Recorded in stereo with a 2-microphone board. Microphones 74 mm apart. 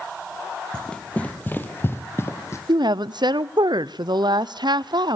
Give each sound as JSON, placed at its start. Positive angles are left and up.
{"t": 0.7, "sound": "running footsteps", "side_deg": 10, "distance_m": 1.7}
{"t": 2.7, "sound": "a woman speaking", "side_deg": -80, "distance_m": 0.5}